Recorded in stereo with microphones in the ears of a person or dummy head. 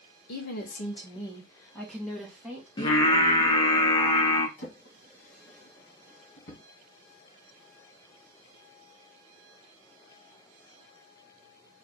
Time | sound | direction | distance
0.3 | a woman speaking | 65° left (ahead or behind) | 0.9 m
2.8 | singing | 20° left (ahead or behind) | 0.8 m
4.6 | a drawer | 55° left (ahead or behind) | 1.7 m